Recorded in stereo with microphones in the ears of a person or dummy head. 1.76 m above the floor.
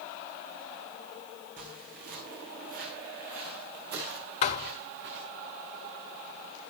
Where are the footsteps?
45° right (ahead or behind), 5 m; by 5.3 s 60° right (ahead or behind), 7.5 m.